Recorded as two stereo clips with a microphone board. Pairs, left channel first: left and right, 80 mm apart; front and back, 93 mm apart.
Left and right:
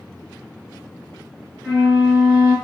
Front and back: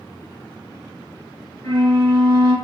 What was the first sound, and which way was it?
A flute, 35° right.